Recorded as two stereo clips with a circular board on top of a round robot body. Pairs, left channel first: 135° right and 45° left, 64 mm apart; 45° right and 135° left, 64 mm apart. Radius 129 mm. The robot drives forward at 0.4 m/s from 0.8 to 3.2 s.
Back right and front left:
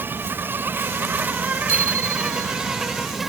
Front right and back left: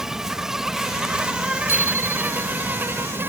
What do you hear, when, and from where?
0.0 s an insect: 60° left; by 3.3 s 130° left
1.7 s a bicycle bell: 85° left